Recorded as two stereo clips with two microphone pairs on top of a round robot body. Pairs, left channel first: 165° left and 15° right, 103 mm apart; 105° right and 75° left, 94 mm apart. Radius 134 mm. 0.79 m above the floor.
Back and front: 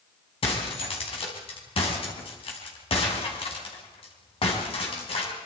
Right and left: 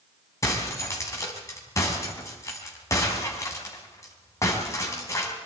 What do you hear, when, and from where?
0.4 s breaking glass: 160° right, 4.5 m